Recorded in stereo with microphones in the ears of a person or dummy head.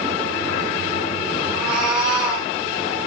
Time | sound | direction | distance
1.5 | a cat meowing | 5° right (ahead or behind) | 7 m